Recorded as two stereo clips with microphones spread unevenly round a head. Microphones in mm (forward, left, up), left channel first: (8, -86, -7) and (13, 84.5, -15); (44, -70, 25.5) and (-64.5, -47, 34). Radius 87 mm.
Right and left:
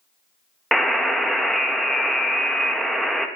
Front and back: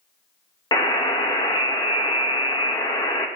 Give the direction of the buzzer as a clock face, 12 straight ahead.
12 o'clock.